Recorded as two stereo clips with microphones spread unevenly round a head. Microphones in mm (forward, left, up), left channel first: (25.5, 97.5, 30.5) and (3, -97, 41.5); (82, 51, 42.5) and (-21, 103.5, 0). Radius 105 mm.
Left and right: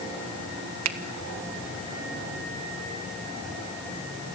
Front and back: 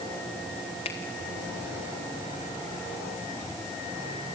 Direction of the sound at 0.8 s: 90° right.